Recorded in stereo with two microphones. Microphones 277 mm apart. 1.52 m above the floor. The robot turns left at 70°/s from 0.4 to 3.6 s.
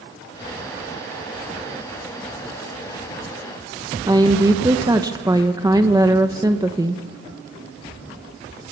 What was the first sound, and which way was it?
A woman speaking, 15° right (ahead or behind).